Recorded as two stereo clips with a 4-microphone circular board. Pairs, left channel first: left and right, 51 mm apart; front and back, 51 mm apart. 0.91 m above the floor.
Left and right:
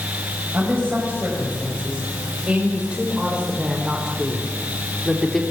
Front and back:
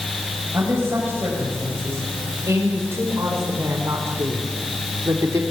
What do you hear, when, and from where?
0.5 s a woman speaking: 145° right, 6 m; by 5.4 s 170° left, 3 m